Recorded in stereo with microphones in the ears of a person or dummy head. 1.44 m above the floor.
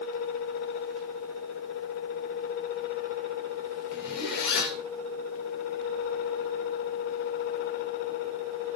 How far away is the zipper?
About 4 m.